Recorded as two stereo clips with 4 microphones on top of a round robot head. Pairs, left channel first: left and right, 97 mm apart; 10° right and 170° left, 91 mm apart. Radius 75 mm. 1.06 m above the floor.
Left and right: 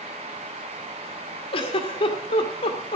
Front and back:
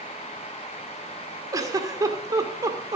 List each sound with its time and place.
1.5 s a giggle: 115° left, 2.0 m